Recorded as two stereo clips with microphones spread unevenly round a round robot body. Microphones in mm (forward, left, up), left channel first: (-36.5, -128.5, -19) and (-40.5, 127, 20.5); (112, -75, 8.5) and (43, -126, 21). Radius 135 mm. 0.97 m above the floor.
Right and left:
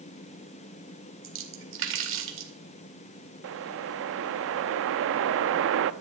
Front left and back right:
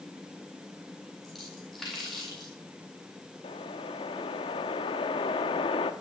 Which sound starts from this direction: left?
A whoosh, at 3.4 s.